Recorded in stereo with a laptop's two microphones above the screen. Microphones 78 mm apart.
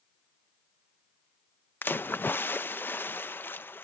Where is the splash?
25° left (ahead or behind).